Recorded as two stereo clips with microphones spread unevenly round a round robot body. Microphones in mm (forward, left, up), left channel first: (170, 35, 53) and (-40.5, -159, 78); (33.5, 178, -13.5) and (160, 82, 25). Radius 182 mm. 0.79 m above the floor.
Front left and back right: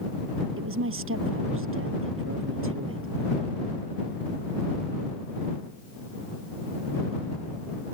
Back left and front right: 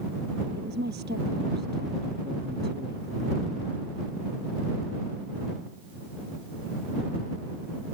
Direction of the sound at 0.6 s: 95° right.